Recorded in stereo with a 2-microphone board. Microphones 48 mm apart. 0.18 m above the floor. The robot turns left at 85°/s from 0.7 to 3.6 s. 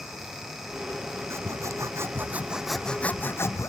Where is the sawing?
60° right; by 3.7 s 105° left.